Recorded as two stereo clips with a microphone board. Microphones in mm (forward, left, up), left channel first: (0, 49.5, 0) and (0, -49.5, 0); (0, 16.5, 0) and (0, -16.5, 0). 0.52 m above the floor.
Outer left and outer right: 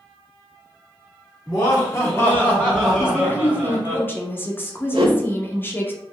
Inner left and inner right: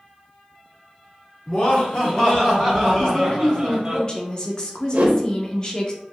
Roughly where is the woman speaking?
Left.